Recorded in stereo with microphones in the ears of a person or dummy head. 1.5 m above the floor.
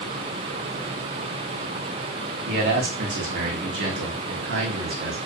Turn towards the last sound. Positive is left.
turn(degrees=-60)  # may be behind; listen again after turning